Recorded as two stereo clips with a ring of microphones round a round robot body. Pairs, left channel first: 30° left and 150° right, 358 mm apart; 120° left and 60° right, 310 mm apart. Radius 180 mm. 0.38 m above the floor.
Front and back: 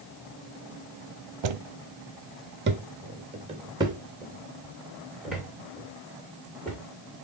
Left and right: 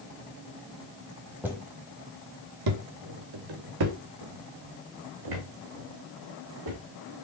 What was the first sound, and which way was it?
Footsteps, 145° right.